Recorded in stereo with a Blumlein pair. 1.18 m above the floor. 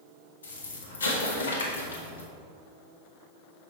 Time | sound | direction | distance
0.4 | an explosion | 65° left | 1.1 m